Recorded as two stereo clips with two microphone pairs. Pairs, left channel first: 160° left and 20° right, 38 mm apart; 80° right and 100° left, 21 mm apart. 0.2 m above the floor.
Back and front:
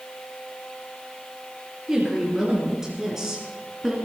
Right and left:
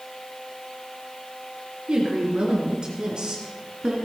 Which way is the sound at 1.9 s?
60° left.